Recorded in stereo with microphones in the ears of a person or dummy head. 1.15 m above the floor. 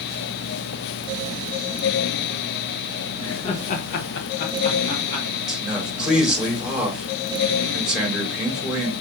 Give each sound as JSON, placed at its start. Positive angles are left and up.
{"t": 3.2, "sound": "laughter", "side_deg": 30, "distance_m": 1.6}
{"t": 5.5, "sound": "a man speaking", "side_deg": -5, "distance_m": 1.9}